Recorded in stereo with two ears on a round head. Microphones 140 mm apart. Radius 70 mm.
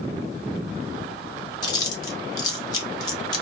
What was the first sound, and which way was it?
Chewing, 25° left (ahead or behind).